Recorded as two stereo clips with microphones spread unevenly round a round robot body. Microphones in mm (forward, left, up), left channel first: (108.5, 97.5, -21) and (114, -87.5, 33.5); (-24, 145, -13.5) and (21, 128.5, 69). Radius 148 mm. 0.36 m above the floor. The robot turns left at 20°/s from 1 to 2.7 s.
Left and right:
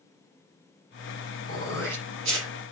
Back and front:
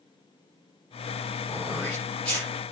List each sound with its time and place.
1.5 s throat clearing: 120° right, 7.5 m; by 2.5 s 140° right, 7.5 m